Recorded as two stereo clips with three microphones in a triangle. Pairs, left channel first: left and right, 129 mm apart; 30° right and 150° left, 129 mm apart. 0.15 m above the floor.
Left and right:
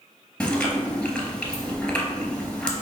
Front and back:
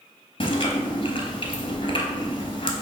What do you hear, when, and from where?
0.4 s chewing: 10° left, 1.0 m